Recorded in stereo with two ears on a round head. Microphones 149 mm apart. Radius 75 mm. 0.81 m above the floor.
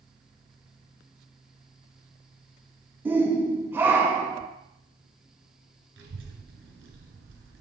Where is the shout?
10° right (ahead or behind), 0.8 m.